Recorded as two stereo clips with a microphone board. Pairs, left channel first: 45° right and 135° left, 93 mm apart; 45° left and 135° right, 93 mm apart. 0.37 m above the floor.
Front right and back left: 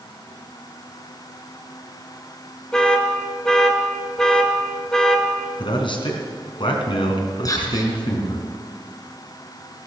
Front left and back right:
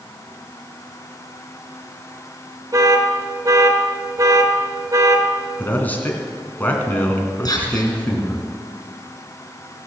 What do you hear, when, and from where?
2.7 s an alarm: 125° right, 1.7 m
5.6 s a man speaking: 25° right, 3 m
7.5 s whispering: straight ahead, 5 m